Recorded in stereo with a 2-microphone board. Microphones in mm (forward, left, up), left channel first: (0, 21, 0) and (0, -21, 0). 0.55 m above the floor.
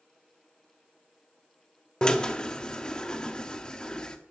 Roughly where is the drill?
Centre.